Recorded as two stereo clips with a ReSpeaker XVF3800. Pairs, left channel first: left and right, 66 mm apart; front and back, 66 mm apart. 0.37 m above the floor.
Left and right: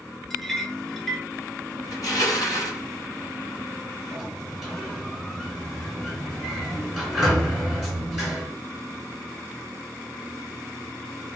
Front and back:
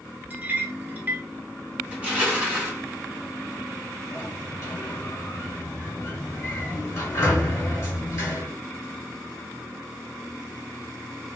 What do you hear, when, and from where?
0.3 s a clink: 170° left, 0.6 m
1.9 s crushing: 115° left, 1.5 m
4.1 s a sliding door: 10° right, 2.0 m